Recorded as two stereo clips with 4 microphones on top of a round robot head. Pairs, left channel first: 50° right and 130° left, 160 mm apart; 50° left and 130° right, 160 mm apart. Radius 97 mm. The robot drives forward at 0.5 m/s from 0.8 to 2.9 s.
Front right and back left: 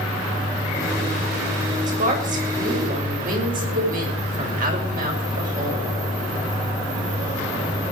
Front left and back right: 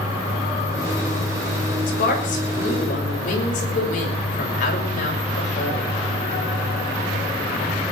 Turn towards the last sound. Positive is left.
turn(degrees=90)